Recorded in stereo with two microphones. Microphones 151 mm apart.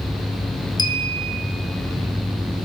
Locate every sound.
0.8 s a clink: 30° left (ahead or behind), 1.6 m